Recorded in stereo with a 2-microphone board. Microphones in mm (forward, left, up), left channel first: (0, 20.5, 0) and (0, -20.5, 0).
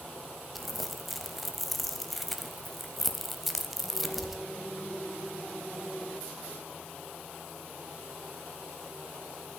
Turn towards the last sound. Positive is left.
turn(degrees=0)  # may be behind; listen again after turning